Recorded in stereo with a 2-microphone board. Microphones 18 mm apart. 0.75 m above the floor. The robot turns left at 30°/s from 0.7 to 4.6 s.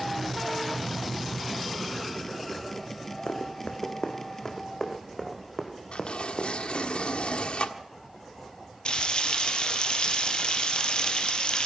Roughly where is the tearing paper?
Left.